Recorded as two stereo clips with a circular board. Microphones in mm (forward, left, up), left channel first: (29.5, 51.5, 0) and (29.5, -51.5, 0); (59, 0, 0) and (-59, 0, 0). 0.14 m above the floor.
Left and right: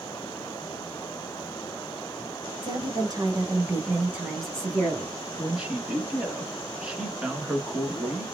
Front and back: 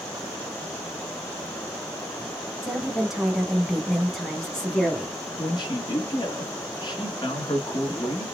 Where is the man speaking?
15° right, 1.7 m.